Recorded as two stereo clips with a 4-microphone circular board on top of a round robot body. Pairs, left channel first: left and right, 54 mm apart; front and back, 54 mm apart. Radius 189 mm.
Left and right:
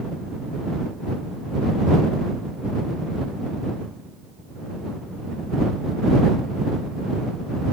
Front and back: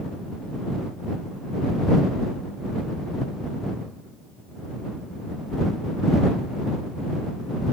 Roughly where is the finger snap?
No finger snap in this recording.